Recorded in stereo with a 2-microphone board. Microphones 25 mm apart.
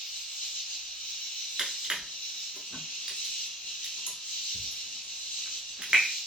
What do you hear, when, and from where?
0.0 s an insect: 80° left, 1.1 m
1.6 s crushing: 40° right (ahead or behind), 0.8 m